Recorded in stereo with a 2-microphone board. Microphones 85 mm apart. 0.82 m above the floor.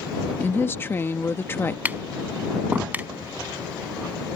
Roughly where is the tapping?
Centre.